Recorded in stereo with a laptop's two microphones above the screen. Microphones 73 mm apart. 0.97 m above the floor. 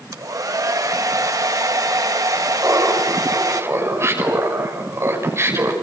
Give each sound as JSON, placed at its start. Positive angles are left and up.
{"t": 0.1, "sound": "a hair dryer", "side_deg": -55, "distance_m": 1.3}
{"t": 2.6, "sound": "laughter", "side_deg": -40, "distance_m": 5.5}